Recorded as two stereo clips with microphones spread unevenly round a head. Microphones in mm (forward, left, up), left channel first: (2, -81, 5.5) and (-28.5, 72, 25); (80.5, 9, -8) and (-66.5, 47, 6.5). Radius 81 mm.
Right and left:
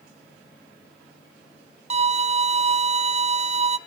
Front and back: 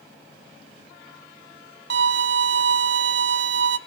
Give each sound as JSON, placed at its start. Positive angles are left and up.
{"t": 1.9, "sound": "a violin", "azimuth_deg": 155, "distance_m": 0.7}